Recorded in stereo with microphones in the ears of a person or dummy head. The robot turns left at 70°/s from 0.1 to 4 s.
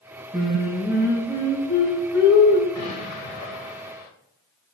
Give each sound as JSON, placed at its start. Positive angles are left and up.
{"t": 0.3, "sound": "singing", "azimuth_deg": -140, "distance_m": 1.9}
{"t": 2.8, "sound": "an explosion", "azimuth_deg": 150, "distance_m": 0.7}